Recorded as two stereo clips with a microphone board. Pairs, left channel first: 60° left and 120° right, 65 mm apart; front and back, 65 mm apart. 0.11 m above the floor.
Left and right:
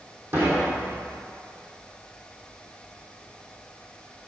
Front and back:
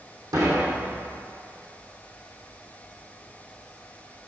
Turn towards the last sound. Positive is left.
turn(degrees=-175)